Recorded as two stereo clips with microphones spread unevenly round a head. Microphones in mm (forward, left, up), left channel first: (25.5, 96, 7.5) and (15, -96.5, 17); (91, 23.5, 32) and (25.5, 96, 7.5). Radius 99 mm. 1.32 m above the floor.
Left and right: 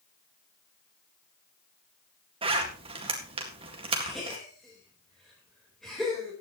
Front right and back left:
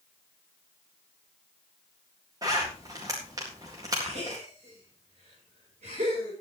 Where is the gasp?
175° left, 4.5 m.